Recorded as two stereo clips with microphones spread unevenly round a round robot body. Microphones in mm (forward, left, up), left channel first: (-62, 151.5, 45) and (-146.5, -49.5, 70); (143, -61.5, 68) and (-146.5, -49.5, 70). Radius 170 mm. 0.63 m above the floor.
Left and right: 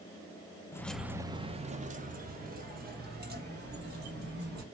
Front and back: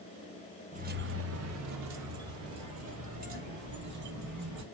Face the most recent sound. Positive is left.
turn(degrees=-155)